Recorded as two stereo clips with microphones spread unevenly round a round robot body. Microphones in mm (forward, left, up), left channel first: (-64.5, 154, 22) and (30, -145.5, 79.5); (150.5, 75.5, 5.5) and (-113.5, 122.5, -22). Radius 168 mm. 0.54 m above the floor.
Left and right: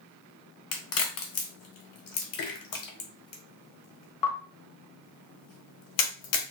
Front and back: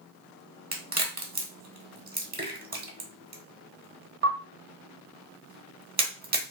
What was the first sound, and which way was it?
A crack, 115° left.